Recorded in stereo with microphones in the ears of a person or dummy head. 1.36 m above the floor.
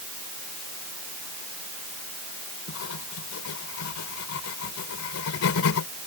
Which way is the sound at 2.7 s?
85° left.